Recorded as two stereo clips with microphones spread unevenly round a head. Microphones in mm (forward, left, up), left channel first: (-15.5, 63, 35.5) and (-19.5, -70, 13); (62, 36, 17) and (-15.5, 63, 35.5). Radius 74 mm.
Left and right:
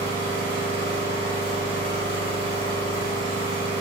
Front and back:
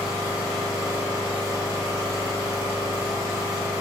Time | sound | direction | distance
0.0 | an engine running | 40° right | 1.2 m